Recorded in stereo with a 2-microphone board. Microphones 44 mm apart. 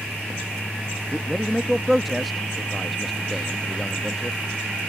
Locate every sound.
1.1 s a man speaking: centre (ahead or behind)